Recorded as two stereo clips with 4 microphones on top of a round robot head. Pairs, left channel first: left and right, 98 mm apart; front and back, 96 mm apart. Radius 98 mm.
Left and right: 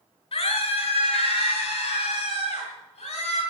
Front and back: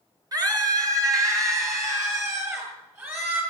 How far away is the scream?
About 6 m.